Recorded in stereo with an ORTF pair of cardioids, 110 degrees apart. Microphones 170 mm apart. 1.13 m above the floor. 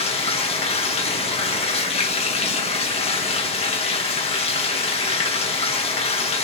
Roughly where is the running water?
Ahead left.